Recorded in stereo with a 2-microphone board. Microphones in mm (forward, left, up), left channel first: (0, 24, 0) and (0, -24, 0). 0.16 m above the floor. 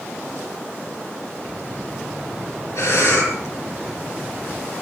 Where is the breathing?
75° left (ahead or behind), 7 m.